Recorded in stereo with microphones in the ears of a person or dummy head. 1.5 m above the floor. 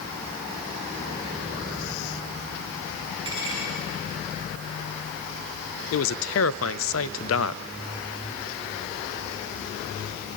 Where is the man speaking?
70° left (ahead or behind), 0.6 m.